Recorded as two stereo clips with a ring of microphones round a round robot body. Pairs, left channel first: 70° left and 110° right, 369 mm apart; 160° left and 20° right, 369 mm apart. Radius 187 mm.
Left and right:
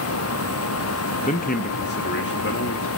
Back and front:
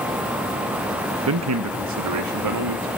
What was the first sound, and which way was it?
A man speaking, 5° left.